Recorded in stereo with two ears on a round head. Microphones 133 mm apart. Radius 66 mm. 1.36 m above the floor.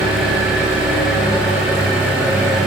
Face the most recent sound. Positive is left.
turn(degrees=-5)  # may be behind; listen again after turning